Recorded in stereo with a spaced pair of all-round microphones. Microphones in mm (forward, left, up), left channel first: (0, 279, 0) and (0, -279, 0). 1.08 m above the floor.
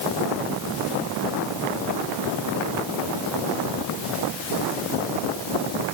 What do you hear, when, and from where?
Only background noise.